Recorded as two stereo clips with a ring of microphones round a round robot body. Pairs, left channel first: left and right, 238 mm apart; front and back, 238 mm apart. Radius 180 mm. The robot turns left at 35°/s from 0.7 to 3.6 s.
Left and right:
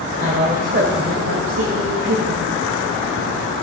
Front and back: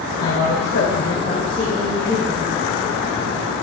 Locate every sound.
0.2 s a woman speaking: 45° right, 1.8 m; by 2.4 s 105° right, 1.8 m